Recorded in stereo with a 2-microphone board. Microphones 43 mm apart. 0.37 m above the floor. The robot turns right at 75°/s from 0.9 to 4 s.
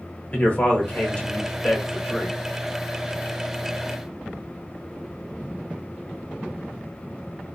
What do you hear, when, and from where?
0.3 s a man speaking: 105° left, 1.2 m; by 2.4 s 145° right, 1.2 m